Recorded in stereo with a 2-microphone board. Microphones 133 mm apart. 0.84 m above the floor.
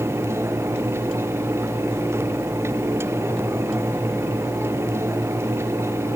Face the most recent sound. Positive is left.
No sound to turn to.